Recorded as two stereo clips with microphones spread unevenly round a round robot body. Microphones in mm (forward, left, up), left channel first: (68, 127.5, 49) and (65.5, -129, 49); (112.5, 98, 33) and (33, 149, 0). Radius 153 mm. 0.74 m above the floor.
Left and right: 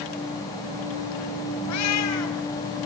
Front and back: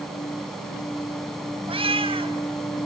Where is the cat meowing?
125° left, 3 m.